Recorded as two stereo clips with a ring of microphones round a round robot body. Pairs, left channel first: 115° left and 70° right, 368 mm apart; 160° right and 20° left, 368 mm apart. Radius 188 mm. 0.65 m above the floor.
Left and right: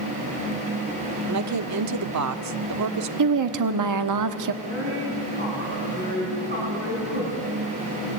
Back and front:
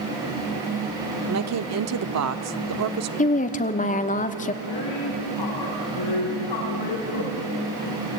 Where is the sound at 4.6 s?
135° right, 7 m.